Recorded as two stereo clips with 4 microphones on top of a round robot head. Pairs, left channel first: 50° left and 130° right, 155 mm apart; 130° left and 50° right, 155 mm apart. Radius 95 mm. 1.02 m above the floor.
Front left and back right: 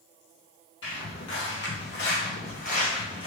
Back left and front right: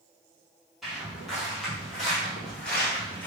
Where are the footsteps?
40° left, 2.0 m; by 3.3 s 65° left, 1.0 m.